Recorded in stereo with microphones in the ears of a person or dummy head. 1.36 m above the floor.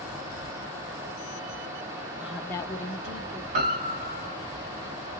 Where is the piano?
40° right (ahead or behind), 1.3 m.